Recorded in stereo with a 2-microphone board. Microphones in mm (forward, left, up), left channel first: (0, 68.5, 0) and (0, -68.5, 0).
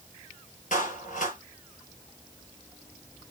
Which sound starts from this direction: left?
A clap, at 0.7 s.